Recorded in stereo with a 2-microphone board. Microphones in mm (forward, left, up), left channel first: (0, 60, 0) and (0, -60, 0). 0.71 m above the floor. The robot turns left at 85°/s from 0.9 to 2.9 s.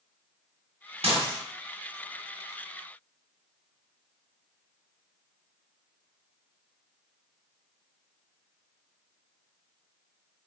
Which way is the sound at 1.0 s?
60° right (ahead or behind).